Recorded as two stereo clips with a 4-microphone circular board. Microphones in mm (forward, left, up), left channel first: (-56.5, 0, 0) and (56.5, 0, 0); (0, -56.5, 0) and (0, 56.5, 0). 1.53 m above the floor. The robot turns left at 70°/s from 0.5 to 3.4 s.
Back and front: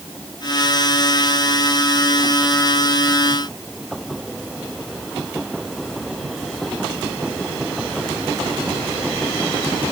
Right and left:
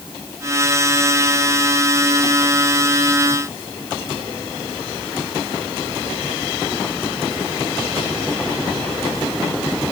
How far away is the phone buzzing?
No phone buzzing in this recording.